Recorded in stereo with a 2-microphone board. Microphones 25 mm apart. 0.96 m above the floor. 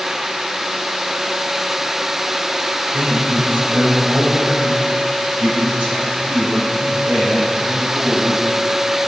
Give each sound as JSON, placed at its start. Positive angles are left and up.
{"t": 2.9, "sound": "a man speaking", "side_deg": -65, "distance_m": 4.5}